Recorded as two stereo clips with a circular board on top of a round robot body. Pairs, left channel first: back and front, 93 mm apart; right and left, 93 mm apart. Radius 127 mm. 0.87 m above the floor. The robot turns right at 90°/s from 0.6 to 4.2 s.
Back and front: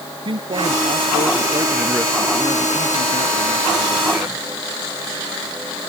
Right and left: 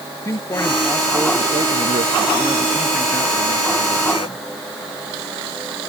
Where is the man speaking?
30° right; by 4.5 s 65° right.